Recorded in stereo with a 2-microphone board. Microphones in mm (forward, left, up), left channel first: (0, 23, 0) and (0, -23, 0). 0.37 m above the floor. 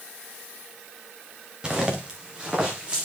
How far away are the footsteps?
About 2.5 m.